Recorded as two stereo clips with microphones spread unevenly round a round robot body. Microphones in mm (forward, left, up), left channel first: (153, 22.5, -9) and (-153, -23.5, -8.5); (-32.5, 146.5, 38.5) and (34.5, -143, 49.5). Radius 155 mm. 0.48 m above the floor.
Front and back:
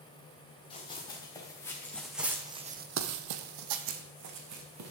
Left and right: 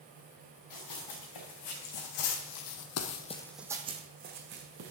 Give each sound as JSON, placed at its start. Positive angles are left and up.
{"t": 0.7, "sound": "running footsteps", "azimuth_deg": 85, "distance_m": 3.5}